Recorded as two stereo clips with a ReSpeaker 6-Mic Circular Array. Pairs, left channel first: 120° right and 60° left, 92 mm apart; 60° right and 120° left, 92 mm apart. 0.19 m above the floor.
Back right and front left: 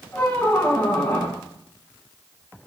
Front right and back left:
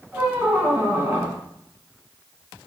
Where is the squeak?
175° left, 1.1 m.